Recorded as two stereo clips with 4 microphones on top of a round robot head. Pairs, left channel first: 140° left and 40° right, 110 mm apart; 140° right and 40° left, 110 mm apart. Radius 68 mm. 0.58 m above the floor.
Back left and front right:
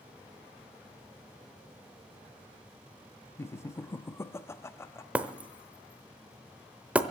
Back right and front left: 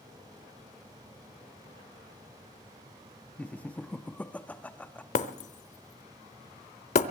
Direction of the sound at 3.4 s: 160° left.